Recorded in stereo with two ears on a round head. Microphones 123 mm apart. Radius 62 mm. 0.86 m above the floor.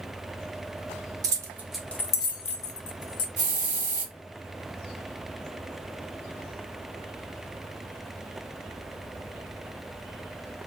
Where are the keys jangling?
25° right (ahead or behind), 0.6 m; by 3.3 s 65° left (ahead or behind), 0.8 m.